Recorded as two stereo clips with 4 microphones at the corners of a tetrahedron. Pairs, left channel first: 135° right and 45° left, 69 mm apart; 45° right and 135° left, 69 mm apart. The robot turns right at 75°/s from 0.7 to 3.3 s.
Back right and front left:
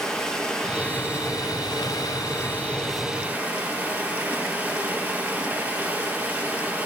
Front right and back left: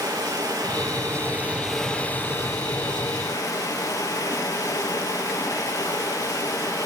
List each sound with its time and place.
0.0 s running water: 145° left, 4 m; by 6.9 s 20° right, 4 m